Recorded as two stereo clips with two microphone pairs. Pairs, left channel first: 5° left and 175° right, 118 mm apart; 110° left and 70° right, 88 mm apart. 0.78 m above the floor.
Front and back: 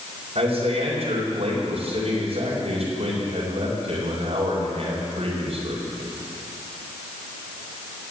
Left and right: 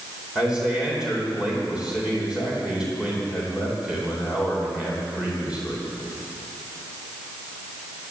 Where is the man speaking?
155° right, 3.5 m.